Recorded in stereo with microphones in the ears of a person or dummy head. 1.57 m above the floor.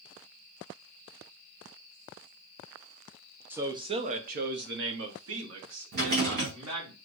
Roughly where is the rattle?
Right.